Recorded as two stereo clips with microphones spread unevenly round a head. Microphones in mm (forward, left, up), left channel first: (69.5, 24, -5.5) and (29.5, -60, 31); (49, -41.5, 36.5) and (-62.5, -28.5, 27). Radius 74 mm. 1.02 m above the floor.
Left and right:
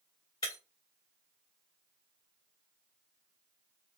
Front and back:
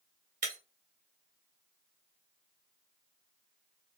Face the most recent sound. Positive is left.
turn(degrees=135)